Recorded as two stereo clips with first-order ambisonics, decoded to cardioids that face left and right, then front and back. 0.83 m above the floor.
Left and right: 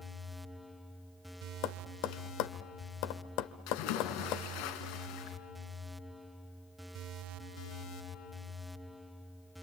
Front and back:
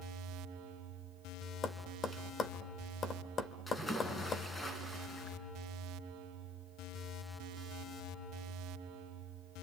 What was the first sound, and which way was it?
Tapping, 65° left.